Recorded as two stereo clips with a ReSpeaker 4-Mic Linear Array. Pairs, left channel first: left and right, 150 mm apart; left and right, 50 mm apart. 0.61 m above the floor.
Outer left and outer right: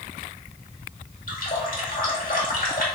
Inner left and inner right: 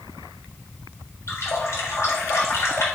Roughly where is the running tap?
Left.